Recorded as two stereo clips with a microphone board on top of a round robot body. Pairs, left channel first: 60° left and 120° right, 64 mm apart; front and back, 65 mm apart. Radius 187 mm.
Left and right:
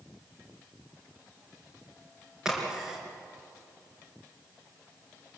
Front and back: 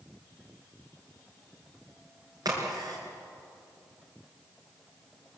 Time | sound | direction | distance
2.5 | a crack | 155° left | 4.5 m